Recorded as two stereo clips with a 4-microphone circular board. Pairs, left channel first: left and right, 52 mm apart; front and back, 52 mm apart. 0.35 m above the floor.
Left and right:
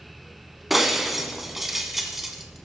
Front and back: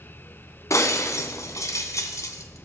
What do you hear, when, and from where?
0.7 s breaking glass: 5° right, 1.8 m